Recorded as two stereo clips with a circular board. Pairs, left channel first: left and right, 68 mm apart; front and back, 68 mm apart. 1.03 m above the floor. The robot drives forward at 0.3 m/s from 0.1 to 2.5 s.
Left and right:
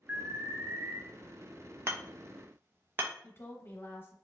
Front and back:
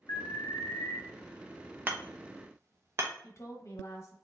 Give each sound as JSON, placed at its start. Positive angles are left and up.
{"t": 0.1, "sound": "an alarm", "azimuth_deg": -30, "distance_m": 0.7}
{"t": 1.9, "sound": "hammering", "azimuth_deg": -125, "distance_m": 0.6}
{"t": 3.2, "sound": "a woman speaking", "azimuth_deg": 40, "distance_m": 0.7}